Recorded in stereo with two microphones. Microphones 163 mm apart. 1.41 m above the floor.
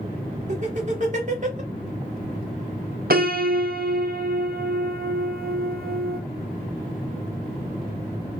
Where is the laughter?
50° right (ahead or behind), 1.7 m.